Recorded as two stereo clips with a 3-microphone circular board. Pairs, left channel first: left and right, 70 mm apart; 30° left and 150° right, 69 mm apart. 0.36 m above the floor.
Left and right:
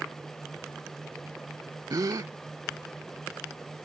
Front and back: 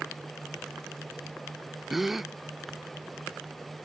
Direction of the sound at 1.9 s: 65° right.